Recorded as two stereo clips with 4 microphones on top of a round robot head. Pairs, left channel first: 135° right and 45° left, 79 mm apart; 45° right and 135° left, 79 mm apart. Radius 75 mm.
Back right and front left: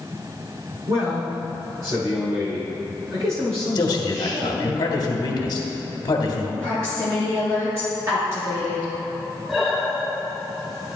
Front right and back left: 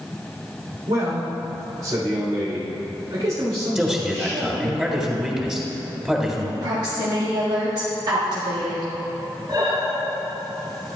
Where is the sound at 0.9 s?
90° left, 3.5 m.